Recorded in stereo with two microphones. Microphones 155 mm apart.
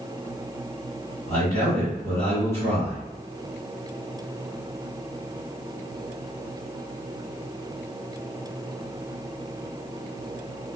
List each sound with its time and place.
1.3 s a man speaking: 15° left (ahead or behind), 1.6 m